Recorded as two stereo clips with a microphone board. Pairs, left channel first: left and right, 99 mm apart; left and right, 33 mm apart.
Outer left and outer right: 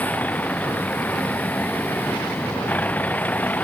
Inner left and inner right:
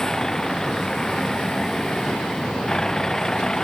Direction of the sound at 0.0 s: 15° left (ahead or behind).